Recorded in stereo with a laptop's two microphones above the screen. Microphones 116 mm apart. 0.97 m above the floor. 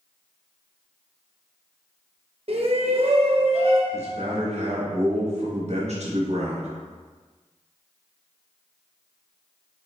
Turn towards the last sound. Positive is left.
turn(degrees=-60)  # may be behind; listen again after turning